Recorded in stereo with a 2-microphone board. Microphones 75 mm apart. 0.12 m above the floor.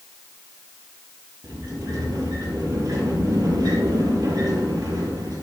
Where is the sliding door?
60° right (ahead or behind), 2.5 m.